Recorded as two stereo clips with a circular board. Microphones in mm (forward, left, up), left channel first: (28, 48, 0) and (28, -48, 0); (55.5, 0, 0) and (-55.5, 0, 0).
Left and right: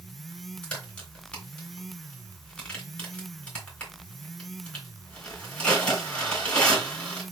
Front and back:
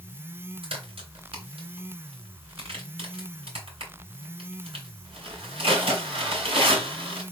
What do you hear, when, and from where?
0.6 s a crack: 165° left, 3.5 m